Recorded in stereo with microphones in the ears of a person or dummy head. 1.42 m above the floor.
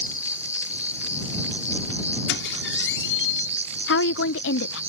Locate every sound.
0.0 s an insect: 10° right (ahead or behind)
2.3 s a squeak: 70° left (ahead or behind)
3.9 s a woman speaking: 70° left (ahead or behind)